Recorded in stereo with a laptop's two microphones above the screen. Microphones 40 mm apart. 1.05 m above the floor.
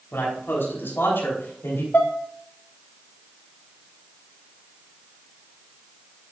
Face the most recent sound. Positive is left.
turn(degrees=50)  # may be behind; listen again after turning